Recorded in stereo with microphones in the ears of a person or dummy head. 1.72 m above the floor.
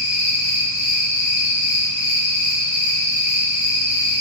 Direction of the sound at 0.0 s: 25° left (ahead or behind).